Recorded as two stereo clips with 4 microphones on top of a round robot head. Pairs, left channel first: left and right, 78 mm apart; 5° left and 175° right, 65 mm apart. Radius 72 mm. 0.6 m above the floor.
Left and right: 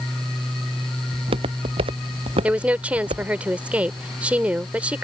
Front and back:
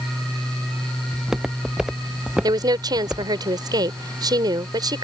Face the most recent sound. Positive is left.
turn(degrees=-165)